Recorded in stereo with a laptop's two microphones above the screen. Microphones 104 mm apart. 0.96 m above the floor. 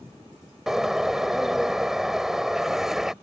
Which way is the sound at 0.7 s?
5° right (ahead or behind).